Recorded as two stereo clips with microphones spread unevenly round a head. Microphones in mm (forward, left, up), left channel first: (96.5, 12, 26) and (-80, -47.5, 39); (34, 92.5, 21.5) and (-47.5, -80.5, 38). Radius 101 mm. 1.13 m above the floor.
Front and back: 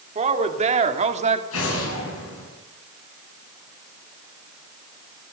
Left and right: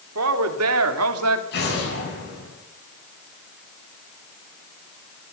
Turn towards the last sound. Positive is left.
turn(degrees=25)